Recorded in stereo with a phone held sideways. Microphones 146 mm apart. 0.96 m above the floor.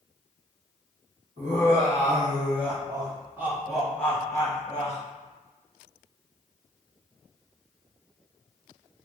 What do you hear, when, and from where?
1.4 s laughter: 55° right (ahead or behind), 1.6 m; by 5.0 s 40° left (ahead or behind), 1.0 m